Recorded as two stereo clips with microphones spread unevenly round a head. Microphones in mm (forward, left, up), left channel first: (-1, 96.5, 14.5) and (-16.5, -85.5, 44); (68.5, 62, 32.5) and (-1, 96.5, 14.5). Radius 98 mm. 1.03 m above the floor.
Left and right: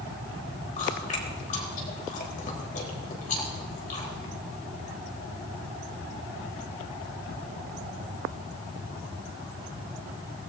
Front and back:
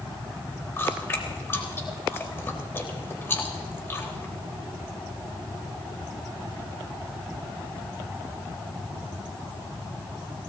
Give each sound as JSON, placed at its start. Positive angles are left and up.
{"t": 0.8, "sound": "chewing", "azimuth_deg": 35, "distance_m": 3.5}